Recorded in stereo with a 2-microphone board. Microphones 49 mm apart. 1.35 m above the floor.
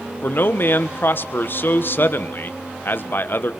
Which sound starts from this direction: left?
A man speaking, at 0.2 s.